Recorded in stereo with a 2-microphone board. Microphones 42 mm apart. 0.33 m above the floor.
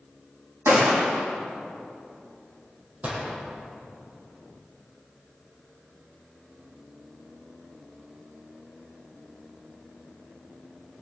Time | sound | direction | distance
0.7 | a gunshot | 85° right | 3.5 m
3.0 | a gunshot | 35° right (ahead or behind) | 4.5 m